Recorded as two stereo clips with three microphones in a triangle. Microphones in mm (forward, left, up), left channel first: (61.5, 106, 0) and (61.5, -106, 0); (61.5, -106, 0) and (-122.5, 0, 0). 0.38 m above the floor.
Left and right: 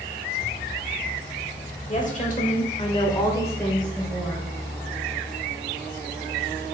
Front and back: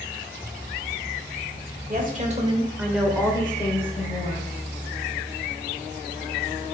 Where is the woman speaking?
130° left, 1.2 m; by 4.5 s 5° right, 1.5 m.